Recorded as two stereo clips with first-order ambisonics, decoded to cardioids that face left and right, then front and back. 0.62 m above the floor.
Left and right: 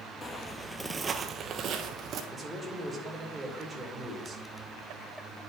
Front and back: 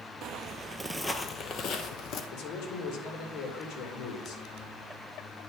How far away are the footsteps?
About 0.8 m.